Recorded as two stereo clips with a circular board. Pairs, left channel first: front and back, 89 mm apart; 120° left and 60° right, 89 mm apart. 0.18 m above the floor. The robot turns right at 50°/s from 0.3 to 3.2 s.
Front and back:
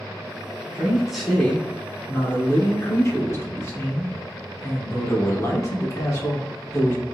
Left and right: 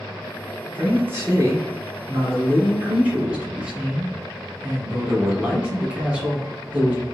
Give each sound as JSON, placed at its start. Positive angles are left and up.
{"t": 0.7, "sound": "a man speaking", "azimuth_deg": -115, "distance_m": 1.2}